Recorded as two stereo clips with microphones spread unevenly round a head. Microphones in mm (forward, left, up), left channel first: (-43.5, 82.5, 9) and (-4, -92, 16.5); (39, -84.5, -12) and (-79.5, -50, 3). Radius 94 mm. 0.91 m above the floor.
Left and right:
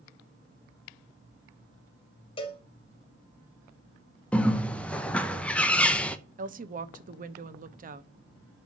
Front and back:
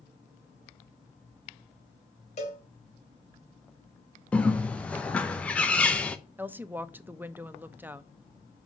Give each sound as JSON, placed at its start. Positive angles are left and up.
{"t": 2.4, "sound": "a cowbell", "azimuth_deg": 40, "distance_m": 1.7}
{"t": 4.3, "sound": "a bird", "azimuth_deg": 35, "distance_m": 0.8}
{"t": 6.4, "sound": "a woman speaking", "azimuth_deg": -120, "distance_m": 1.0}